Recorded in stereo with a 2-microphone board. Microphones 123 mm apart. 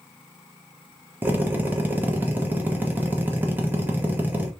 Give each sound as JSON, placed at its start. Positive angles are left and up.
{"t": 1.2, "sound": "a drill", "side_deg": -15, "distance_m": 0.9}